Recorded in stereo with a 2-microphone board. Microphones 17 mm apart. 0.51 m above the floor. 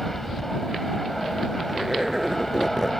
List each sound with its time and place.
0.0 s an aircraft: 10° left (ahead or behind)
1.7 s a zipper: 20° right (ahead or behind)